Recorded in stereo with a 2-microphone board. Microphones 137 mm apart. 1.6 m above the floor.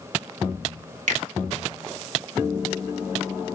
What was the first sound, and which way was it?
A finger snap, 70° right (ahead or behind).